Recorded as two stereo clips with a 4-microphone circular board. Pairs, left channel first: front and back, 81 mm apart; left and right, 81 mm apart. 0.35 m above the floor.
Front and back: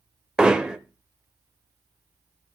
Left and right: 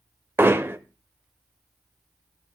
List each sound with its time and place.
0.4 s hammering: 110° right, 0.8 m